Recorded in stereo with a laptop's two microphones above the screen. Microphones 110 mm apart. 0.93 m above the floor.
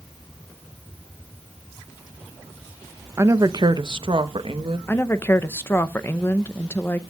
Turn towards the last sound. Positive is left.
turn(degrees=20)  # may be behind; listen again after turning